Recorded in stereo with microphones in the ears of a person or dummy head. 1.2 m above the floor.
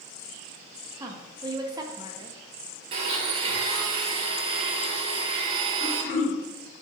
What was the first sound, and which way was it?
A woman speaking, 20° right (ahead or behind).